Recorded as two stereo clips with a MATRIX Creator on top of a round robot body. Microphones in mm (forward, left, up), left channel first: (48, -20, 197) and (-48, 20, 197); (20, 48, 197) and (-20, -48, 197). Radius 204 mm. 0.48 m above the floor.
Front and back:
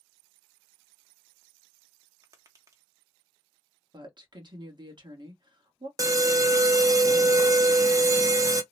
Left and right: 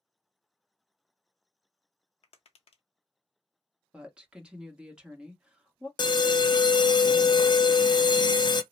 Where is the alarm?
105° left, 0.6 m.